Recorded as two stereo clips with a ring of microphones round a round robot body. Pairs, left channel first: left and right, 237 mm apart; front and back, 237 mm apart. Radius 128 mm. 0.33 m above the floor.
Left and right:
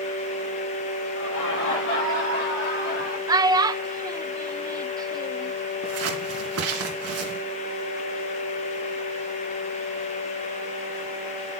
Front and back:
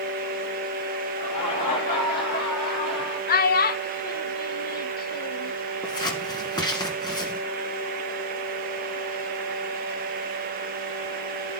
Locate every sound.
1.1 s laughter: 65° left, 7 m; by 3.2 s 40° left, 5 m
3.3 s a child speaking: 25° right, 0.6 m
5.8 s scissors: 75° right, 2.5 m